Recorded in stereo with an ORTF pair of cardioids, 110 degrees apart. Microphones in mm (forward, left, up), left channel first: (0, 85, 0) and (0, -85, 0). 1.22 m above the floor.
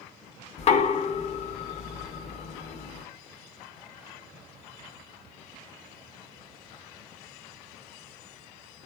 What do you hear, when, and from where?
0.6 s knocking: 40° left, 0.6 m